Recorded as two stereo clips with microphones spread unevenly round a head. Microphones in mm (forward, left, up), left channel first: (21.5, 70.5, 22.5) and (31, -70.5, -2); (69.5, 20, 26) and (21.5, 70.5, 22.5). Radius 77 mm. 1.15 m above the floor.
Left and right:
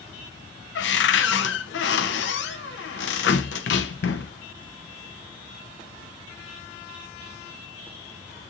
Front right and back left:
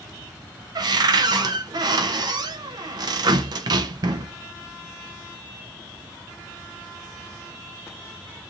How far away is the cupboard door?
About 0.8 m.